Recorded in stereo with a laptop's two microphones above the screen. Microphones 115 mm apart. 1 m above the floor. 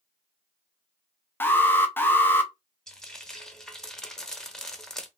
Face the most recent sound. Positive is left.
turn(degrees=5)  # may be behind; listen again after turning